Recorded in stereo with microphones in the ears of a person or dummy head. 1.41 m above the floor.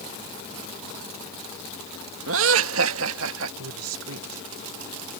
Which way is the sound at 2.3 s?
75° right (ahead or behind).